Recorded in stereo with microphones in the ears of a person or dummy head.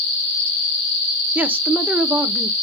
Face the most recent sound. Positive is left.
turn(degrees=-10)  # may be behind; listen again after turning